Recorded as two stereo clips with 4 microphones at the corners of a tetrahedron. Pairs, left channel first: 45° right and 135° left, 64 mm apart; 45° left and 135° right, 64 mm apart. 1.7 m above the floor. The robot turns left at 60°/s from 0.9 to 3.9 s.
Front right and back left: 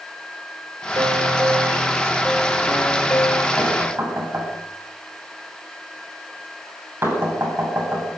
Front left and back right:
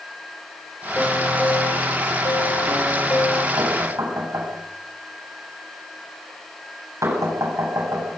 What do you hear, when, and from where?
1.0 s a piano: 120° left, 4.5 m; by 3.5 s 30° right, 4.5 m
3.6 s knocking: 155° right, 8 m; by 8.1 s 175° right, 8 m